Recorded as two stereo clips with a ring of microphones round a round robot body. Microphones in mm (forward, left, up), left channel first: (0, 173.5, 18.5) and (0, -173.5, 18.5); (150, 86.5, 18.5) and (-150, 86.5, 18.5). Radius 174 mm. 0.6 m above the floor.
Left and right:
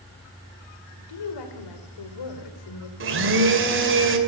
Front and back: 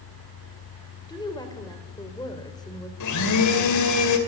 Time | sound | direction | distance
1.1 | a woman speaking | 75° left | 2.5 m
3.0 | a blender | 35° right | 2.5 m